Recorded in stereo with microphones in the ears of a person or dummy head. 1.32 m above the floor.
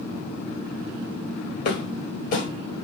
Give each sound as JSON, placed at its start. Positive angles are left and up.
{"t": 1.6, "sound": "footsteps", "side_deg": 50, "distance_m": 1.8}